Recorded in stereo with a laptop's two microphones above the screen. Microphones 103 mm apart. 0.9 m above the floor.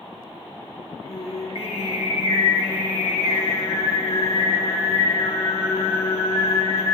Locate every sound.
1.1 s singing: 65° left (ahead or behind), 1.2 m